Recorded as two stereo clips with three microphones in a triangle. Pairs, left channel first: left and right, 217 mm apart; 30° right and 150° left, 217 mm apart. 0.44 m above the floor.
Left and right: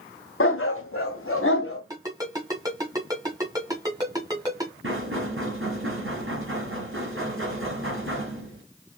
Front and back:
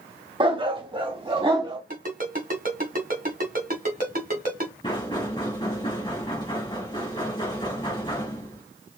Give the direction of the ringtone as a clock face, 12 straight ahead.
5 o'clock.